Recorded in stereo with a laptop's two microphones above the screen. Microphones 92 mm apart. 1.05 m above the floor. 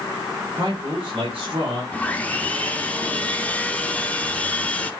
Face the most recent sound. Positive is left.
turn(degrees=15)  # may be behind; listen again after turning